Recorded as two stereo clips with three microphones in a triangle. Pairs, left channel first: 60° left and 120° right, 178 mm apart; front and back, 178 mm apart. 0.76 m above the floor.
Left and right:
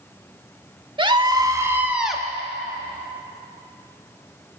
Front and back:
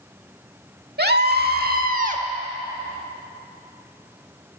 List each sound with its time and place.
1.0 s a scream: straight behind, 1.8 m; by 2.2 s 145° left, 1.2 m